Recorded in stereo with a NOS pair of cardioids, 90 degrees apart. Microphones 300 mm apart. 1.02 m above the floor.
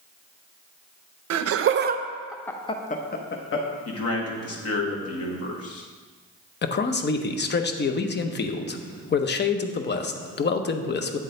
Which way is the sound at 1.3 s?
60° right.